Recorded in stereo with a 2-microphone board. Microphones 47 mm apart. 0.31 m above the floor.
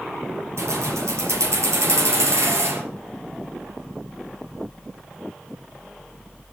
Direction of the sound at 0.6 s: 80° right.